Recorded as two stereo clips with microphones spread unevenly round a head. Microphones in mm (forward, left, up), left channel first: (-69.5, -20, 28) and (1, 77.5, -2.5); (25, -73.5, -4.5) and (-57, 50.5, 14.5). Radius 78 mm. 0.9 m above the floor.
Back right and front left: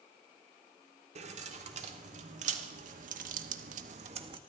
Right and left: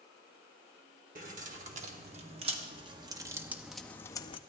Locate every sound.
1.1 s keys jangling: 80° left, 1.8 m; by 4.4 s straight ahead, 0.6 m